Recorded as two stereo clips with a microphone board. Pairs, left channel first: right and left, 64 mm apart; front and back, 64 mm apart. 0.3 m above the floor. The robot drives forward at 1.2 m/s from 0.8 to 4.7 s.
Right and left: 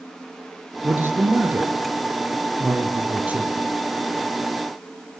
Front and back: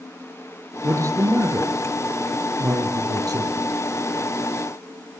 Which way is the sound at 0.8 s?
140° left.